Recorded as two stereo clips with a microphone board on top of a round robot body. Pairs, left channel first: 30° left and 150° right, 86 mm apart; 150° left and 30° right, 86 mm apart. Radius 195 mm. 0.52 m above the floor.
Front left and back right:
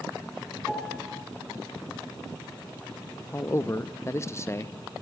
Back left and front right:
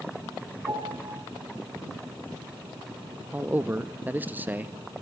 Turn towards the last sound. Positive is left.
turn(degrees=20)